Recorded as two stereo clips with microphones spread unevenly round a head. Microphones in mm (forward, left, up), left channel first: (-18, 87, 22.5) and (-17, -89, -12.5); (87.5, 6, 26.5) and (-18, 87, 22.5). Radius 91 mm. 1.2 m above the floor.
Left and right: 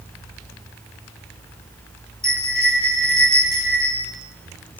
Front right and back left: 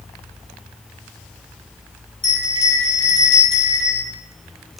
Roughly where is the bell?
Ahead.